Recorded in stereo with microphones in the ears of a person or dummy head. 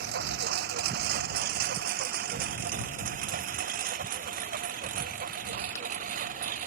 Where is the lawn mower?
60° right (ahead or behind); by 6.7 s 45° right (ahead or behind).